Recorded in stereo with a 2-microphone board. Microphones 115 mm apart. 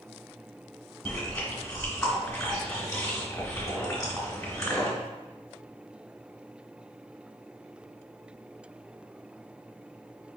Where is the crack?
No crack in this recording.